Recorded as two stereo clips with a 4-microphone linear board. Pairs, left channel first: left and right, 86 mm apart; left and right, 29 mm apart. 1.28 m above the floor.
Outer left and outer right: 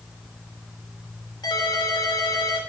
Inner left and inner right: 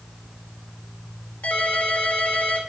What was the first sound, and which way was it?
A ringtone, 60° left (ahead or behind).